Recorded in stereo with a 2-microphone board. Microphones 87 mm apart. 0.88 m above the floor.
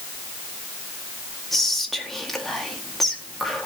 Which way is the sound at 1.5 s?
5° left (ahead or behind).